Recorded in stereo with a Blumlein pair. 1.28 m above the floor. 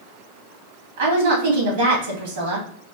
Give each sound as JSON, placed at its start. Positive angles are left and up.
{"t": 1.0, "sound": "a woman speaking", "azimuth_deg": -55, "distance_m": 2.0}